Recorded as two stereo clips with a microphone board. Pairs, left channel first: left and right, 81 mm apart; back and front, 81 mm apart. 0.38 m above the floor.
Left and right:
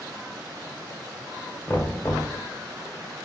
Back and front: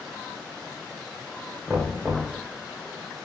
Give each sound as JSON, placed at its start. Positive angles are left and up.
{"t": 1.7, "sound": "knocking", "azimuth_deg": 55, "distance_m": 1.0}